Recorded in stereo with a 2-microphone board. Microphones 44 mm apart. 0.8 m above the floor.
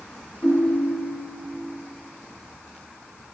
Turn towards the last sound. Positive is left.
turn(degrees=70)  # may be behind; listen again after turning